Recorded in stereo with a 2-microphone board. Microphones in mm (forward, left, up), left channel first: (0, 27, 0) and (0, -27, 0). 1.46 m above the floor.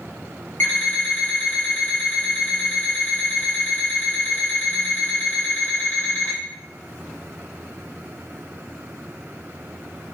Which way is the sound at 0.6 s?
40° left (ahead or behind).